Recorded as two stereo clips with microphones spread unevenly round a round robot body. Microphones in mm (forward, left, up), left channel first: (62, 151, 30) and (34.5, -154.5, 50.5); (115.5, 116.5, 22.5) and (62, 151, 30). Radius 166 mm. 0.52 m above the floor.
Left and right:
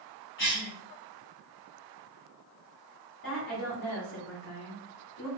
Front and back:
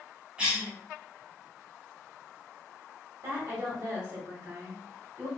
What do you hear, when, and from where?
0.4 s a cough: 75° left, 1.5 m
3.2 s a woman speaking: 120° left, 1.3 m